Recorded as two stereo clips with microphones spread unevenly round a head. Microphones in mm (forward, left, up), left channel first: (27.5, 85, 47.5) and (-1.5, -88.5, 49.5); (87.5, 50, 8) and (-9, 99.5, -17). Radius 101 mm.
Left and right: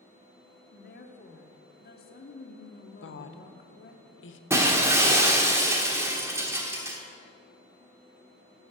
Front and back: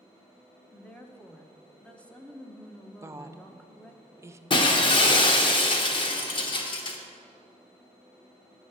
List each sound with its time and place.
0.7 s a woman speaking: 55° left, 1.3 m
3.0 s a woman speaking: 90° left, 0.9 m
4.5 s breaking glass: 25° right, 1.2 m